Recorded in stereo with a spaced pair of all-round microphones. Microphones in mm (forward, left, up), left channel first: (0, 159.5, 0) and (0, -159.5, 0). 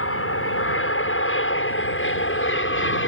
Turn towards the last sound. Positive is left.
turn(degrees=40)  # may be behind; listen again after turning